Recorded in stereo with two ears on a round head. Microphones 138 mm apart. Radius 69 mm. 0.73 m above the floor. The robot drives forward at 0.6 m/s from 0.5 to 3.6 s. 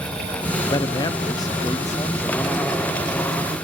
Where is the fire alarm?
I don't hear a fire alarm.